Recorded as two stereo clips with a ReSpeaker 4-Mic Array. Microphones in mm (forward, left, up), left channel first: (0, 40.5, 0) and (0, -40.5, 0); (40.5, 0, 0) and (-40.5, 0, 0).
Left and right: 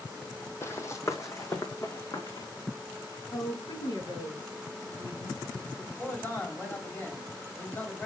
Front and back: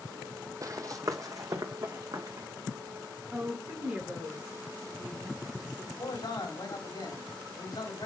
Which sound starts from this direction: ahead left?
A man speaking, at 6.0 s.